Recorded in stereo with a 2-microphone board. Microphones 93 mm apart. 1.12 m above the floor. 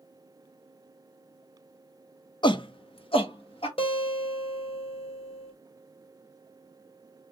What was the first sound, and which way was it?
A shout, 55° left (ahead or behind).